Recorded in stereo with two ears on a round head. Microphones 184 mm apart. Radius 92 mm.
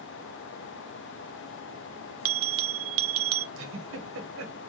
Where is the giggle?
70° right (ahead or behind), 1.3 m.